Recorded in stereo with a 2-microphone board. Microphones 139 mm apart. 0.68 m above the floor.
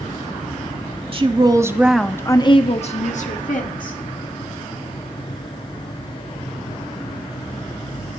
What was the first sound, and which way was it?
A woman speaking, 40° right (ahead or behind).